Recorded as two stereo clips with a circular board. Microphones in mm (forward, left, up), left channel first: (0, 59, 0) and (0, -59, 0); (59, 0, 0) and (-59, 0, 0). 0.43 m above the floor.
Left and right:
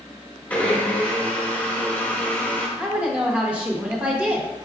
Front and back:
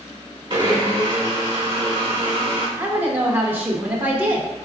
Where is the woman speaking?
145° right, 0.7 m.